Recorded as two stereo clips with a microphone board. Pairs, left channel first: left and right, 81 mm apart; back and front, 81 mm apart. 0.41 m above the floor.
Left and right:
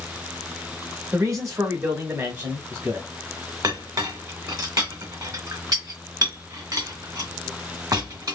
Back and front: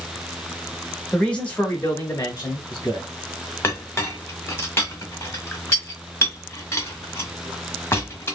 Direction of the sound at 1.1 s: 100° right.